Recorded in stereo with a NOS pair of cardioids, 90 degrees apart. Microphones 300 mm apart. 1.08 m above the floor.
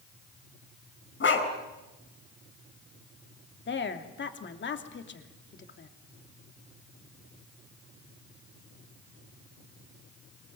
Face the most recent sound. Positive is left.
turn(degrees=40)